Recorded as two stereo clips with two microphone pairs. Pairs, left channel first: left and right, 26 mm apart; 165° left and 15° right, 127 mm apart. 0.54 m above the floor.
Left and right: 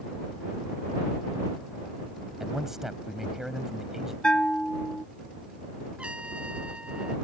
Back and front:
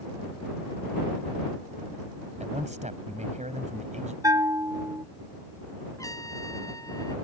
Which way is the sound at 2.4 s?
15° right.